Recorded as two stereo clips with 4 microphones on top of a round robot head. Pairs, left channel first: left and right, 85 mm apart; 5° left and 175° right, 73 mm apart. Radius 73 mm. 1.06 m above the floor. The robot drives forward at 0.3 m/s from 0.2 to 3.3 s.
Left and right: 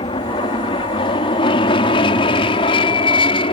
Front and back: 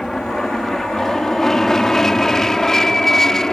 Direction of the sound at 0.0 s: 90° left.